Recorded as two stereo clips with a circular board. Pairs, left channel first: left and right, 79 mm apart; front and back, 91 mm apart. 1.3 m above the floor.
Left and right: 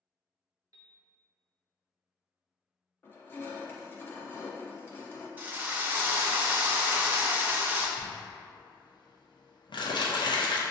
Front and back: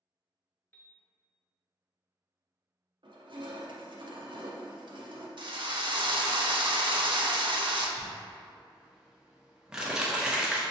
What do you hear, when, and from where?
0.7 s a piano: 65° right, 0.6 m
3.0 s crushing: 150° left, 0.6 m
5.4 s a drill: 155° right, 0.5 m
8.0 s crumpling: 100° left, 0.6 m